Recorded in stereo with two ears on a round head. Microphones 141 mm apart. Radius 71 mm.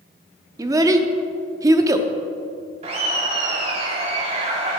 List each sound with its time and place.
0.6 s a child speaking: 20° right (ahead or behind), 0.6 m
2.8 s laughter: 40° right (ahead or behind), 1.3 m